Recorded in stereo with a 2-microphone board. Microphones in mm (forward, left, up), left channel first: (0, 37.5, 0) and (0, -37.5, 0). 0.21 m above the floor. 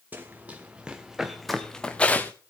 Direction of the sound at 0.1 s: 25° right (ahead or behind).